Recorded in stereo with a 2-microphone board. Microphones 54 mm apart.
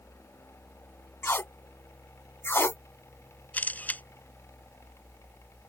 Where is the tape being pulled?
50° left (ahead or behind).